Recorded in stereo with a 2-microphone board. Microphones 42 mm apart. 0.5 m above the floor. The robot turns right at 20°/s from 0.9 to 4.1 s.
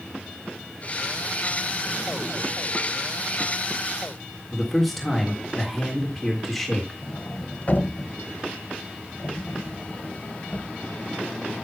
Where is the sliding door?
45° left (ahead or behind), 0.7 m.